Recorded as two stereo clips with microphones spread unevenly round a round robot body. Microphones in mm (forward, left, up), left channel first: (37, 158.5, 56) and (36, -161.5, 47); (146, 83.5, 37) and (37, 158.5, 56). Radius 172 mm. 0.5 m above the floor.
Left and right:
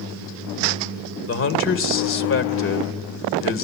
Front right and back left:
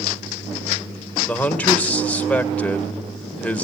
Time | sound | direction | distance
1.3 | a man speaking | 40° left | 2.5 m